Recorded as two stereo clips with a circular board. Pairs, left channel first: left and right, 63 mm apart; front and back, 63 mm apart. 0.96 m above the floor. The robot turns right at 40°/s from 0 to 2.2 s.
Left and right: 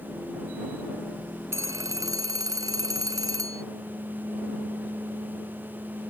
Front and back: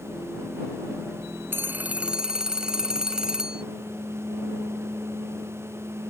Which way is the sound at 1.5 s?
130° right.